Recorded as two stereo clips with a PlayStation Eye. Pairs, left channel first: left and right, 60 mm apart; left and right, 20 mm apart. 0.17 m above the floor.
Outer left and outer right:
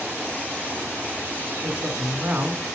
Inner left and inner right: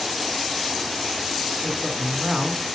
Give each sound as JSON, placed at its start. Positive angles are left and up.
{"t": 1.6, "sound": "a woman speaking", "side_deg": -25, "distance_m": 1.1}